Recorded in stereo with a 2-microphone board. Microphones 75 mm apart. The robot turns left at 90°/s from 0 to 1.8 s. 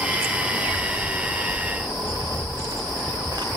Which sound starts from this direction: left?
Footsteps, at 0.4 s.